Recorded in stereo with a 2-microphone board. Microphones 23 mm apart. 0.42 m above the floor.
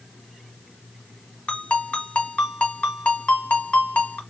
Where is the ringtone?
80° left, 1.4 m.